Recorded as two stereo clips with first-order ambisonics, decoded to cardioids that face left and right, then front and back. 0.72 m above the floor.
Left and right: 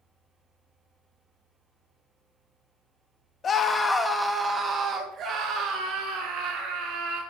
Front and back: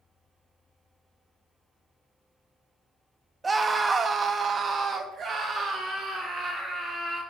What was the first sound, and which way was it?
A scream, 115° left.